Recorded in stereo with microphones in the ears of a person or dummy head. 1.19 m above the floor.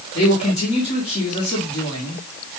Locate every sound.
0.1 s a man speaking: 30° left (ahead or behind), 1.6 m